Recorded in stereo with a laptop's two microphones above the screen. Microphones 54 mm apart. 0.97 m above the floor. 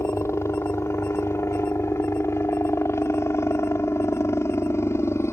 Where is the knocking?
I don't hear knocking.